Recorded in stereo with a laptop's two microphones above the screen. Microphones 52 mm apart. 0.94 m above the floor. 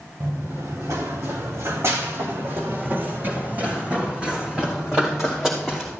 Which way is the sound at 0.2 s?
70° right (ahead or behind).